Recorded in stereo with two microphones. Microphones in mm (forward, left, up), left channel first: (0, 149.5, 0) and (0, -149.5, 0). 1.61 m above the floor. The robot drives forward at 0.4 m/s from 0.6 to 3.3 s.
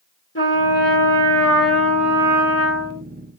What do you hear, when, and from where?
0.3 s a trumpet: 40° left (ahead or behind), 2.5 m; by 3.0 s 50° left (ahead or behind), 2.5 m